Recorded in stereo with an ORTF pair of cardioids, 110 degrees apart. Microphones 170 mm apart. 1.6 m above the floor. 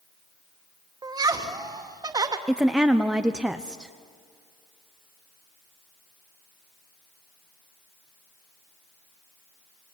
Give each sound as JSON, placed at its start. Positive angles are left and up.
{"t": 1.0, "sound": "laughter", "azimuth_deg": -20, "distance_m": 2.5}
{"t": 2.5, "sound": "a woman speaking", "azimuth_deg": -5, "distance_m": 0.9}